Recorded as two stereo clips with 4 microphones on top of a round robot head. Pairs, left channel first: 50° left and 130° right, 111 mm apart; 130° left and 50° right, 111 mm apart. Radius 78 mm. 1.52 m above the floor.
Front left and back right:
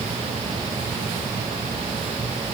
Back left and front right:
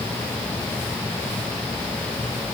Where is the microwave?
I don't hear a microwave.